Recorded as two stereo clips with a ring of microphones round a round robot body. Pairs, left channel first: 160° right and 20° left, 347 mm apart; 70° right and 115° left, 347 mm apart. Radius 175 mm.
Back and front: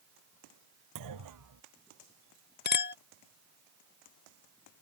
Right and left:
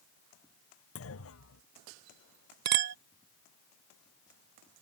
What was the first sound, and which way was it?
A clunk, 15° right.